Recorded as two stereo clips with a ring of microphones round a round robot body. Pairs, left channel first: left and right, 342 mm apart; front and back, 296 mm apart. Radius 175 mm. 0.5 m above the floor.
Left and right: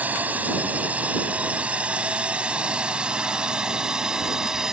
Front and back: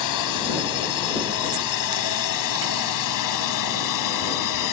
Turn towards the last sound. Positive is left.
turn(degrees=0)